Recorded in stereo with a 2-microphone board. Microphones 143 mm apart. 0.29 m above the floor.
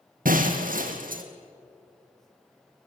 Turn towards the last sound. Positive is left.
turn(degrees=-75)  # may be behind; listen again after turning